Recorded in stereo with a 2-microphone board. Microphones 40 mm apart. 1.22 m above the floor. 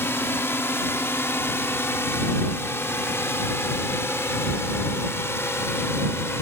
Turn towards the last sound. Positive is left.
turn(degrees=80)